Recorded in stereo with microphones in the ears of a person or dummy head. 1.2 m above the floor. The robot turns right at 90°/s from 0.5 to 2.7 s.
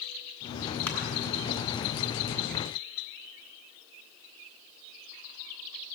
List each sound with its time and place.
0.9 s crushing: 5° left (ahead or behind), 3 m; by 1.0 s 15° left (ahead or behind), 3 m